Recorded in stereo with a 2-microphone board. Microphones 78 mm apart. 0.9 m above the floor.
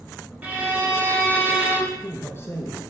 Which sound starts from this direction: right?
A violin, at 0.4 s.